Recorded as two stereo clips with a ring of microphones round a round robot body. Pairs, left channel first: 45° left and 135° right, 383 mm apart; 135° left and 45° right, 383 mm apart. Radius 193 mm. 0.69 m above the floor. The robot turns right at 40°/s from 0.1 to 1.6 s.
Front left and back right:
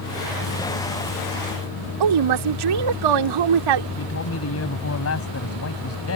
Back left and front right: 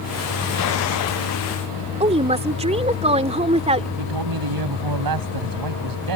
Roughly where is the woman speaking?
Behind right.